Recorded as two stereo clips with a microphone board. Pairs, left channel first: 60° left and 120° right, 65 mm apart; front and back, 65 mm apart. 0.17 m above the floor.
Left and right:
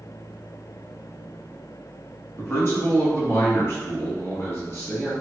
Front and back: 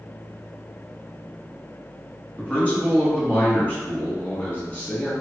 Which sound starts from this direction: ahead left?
A man speaking, at 2.4 s.